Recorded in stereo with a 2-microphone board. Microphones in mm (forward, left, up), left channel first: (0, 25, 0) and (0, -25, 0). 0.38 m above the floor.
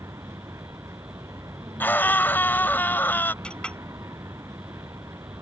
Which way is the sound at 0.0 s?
80° right.